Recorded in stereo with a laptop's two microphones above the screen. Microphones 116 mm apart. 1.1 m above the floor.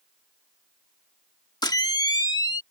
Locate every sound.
1.6 s a camera shutter: 35° left (ahead or behind)